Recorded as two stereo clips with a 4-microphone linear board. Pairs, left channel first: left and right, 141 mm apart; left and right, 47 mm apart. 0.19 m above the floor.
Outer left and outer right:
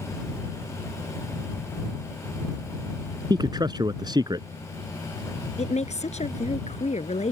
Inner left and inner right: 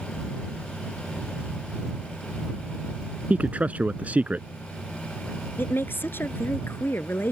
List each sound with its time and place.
3.3 s a man speaking: 30° right (ahead or behind)
5.6 s a woman speaking: 55° left (ahead or behind)